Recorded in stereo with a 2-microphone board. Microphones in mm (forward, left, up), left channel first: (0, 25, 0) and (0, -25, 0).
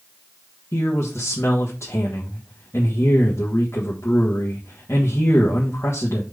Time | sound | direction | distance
0.7 | a man speaking | 65° left (ahead or behind) | 1.5 m